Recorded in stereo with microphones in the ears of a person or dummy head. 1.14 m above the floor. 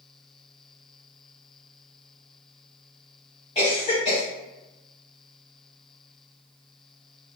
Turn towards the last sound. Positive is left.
turn(degrees=25)  # may be behind; listen again after turning